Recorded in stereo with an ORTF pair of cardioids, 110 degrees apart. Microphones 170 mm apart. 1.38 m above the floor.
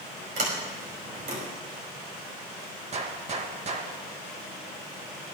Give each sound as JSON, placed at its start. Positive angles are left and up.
{"t": 0.4, "sound": "a sliding door", "azimuth_deg": -55, "distance_m": 5.5}
{"t": 2.9, "sound": "a gunshot", "azimuth_deg": -40, "distance_m": 1.8}